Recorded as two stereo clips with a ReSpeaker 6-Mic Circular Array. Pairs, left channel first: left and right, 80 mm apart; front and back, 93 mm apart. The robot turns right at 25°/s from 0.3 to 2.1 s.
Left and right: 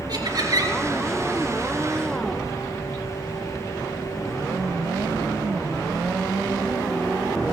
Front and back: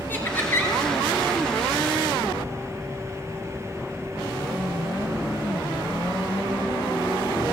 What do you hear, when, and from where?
0.1 s laughter: 65° right, 3 m; by 0.8 s 55° right, 3 m